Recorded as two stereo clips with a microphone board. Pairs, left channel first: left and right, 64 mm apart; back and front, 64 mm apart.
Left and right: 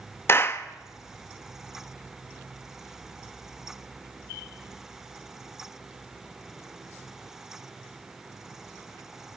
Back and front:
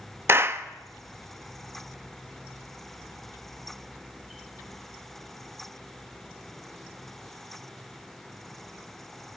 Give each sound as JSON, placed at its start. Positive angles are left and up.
{"t": 0.3, "sound": "a clap", "azimuth_deg": 45, "distance_m": 1.1}